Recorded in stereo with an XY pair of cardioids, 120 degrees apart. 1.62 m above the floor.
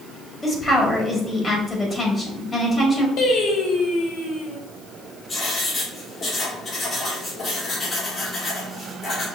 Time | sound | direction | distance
0.4 | a woman speaking | 25° left | 2 m
3.2 | singing | 65° left | 1.0 m
5.3 | writing | 40° left | 2.5 m